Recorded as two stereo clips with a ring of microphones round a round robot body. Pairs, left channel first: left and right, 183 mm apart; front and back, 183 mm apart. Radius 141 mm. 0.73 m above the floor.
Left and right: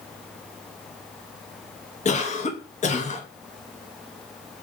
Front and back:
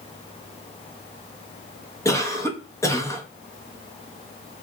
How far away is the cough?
About 1.1 m.